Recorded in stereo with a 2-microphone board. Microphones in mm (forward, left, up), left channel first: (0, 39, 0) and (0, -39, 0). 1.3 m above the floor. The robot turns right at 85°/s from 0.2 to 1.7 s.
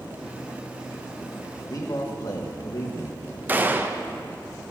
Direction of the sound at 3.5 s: 25° right (ahead or behind).